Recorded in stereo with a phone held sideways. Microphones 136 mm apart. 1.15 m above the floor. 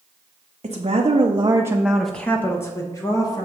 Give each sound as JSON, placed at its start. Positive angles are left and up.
{"t": 0.6, "sound": "a woman speaking", "side_deg": -55, "distance_m": 0.9}